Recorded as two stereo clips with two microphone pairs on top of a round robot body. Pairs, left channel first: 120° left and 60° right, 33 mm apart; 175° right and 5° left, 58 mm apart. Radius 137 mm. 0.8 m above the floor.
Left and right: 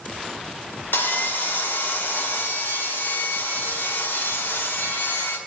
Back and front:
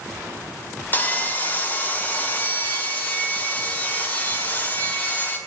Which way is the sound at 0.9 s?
125° left.